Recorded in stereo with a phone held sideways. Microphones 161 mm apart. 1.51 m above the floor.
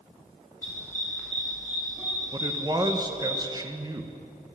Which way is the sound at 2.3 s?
25° right (ahead or behind).